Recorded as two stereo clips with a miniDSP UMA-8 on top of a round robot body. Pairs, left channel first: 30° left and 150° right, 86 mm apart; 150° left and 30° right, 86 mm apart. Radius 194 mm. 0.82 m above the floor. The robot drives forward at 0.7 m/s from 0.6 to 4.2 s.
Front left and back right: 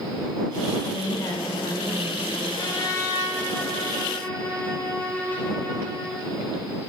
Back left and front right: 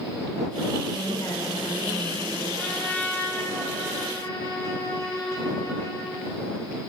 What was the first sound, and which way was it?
A woman speaking, 90° left.